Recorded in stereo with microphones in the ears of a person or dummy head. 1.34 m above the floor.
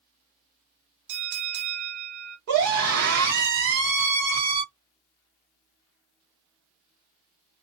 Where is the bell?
65° right (ahead or behind), 0.6 m.